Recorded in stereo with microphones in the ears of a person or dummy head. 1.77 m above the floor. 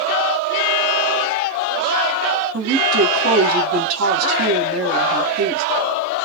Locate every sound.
2.5 s a woman speaking: 80° right, 1.9 m